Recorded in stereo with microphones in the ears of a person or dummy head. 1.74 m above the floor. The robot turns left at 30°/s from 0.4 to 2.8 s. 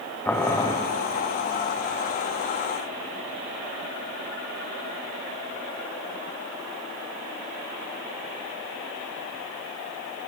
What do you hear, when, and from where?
0.2 s boiling: 10° left (ahead or behind), 0.9 m; by 0.8 s 20° left (ahead or behind), 0.9 m